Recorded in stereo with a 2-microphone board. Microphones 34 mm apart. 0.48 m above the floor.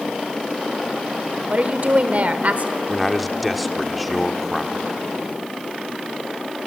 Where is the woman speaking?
50° right (ahead or behind), 1.4 m.